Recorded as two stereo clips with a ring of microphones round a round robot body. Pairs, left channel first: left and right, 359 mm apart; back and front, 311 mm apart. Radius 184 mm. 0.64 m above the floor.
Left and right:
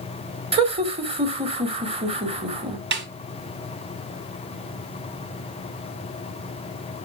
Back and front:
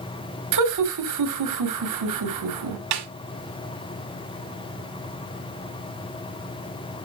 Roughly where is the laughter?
Ahead.